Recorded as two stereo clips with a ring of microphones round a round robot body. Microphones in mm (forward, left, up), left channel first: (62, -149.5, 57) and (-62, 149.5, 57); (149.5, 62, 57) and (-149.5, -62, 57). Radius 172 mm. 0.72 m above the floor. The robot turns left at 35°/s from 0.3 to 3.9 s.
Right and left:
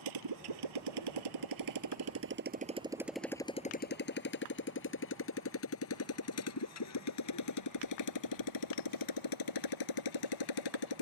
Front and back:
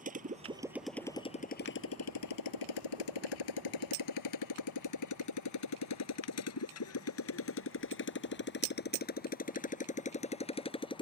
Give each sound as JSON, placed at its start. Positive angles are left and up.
{"t": 0.0, "sound": "a motorcycle", "azimuth_deg": 135}